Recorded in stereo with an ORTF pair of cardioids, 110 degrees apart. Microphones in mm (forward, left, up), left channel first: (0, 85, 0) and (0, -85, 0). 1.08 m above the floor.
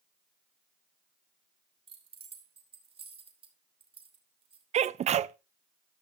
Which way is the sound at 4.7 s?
40° right.